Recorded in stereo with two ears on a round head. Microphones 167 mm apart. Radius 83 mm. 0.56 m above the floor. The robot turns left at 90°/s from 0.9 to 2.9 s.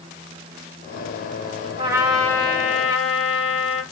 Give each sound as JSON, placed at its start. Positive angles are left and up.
{"t": 1.8, "sound": "a trumpet", "azimuth_deg": -150, "distance_m": 1.1}